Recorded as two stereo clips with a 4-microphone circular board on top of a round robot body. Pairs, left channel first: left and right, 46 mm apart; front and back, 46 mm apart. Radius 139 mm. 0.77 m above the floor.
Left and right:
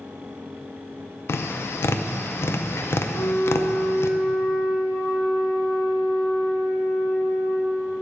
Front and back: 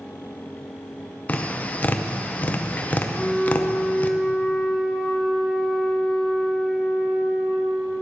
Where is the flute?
70° left, 3 m.